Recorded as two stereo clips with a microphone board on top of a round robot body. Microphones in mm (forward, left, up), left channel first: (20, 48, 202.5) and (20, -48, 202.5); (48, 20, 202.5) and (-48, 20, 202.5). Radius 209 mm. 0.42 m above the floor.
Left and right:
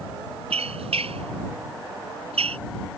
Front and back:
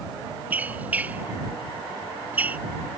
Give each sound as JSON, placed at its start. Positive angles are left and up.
{"t": 0.5, "sound": "a squeak", "azimuth_deg": -105}